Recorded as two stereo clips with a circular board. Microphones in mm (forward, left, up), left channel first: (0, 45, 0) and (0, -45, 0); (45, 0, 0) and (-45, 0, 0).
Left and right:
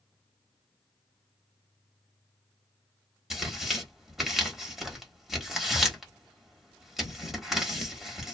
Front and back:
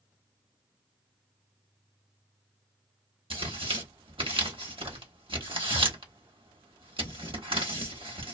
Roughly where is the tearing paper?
Behind.